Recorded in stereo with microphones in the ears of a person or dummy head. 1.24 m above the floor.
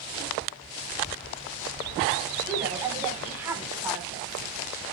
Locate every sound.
2.5 s a woman speaking: 15° right (ahead or behind), 4 m